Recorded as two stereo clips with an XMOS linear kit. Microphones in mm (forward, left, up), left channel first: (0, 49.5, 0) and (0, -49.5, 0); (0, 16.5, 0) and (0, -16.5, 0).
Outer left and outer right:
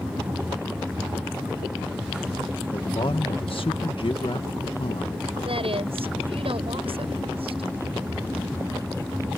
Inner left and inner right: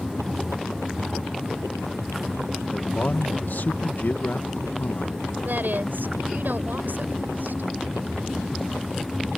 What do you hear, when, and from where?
2.7 s a man speaking: 65° left (ahead or behind)
5.5 s a woman speaking: 70° right (ahead or behind)